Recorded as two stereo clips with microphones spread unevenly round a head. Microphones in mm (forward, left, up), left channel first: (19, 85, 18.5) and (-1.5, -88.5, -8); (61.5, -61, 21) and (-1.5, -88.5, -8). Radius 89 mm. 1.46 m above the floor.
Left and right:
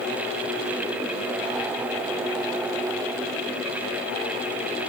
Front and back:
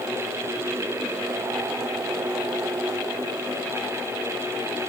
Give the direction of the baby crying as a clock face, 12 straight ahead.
I don't hear a baby crying.